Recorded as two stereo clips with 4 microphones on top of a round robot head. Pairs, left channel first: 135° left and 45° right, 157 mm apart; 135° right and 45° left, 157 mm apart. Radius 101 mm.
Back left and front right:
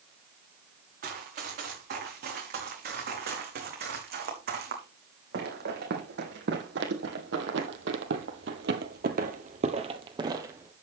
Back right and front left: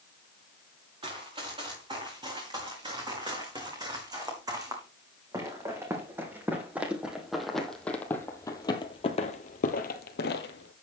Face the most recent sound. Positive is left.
turn(degrees=-125)